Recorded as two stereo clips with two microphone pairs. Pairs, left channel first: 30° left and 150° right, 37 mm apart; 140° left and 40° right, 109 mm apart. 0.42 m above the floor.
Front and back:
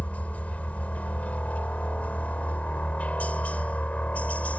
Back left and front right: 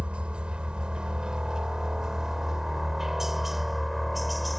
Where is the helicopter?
35° left; by 4.6 s 50° left.